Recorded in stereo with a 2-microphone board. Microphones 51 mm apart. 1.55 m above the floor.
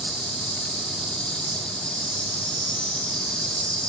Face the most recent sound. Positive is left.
turn(degrees=15)  # may be behind; listen again after turning